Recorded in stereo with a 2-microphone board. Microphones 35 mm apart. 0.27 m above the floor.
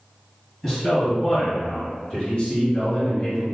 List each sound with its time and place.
0.6 s a man speaking: 10° left (ahead or behind), 1.9 m; by 3.4 s 45° left (ahead or behind), 2 m